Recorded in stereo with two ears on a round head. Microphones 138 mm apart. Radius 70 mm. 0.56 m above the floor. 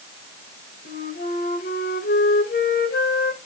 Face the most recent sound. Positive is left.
turn(degrees=65)  # may be behind; listen again after turning